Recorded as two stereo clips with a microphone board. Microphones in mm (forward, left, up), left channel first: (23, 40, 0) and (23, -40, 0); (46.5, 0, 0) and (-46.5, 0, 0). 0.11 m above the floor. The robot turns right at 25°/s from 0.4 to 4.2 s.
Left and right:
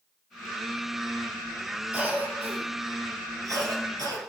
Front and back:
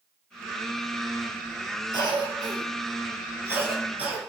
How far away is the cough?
About 2.0 m.